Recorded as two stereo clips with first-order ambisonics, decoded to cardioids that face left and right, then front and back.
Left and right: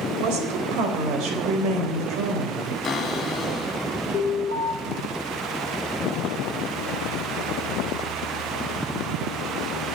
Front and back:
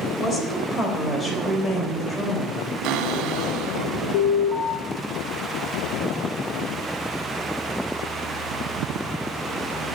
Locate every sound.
0.2 s a woman speaking: 70° right, 3.5 m
2.8 s a cupboard door: 155° left, 2.0 m
4.1 s an alarm: 15° left, 7 m